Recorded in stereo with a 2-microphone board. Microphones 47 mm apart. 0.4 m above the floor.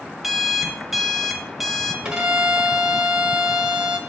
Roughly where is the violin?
Centre.